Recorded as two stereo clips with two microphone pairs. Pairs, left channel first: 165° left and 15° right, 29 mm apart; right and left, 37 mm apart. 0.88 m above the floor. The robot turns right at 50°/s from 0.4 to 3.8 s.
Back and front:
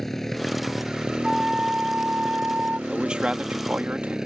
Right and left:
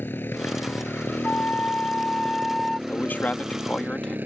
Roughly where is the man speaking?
Right.